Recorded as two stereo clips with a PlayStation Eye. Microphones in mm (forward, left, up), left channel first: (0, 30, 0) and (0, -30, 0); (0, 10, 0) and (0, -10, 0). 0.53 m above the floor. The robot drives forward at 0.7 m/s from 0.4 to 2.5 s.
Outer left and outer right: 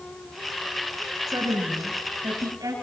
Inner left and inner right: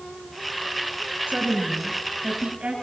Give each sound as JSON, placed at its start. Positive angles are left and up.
{"t": 1.3, "sound": "a woman speaking", "side_deg": -75, "distance_m": 7.5}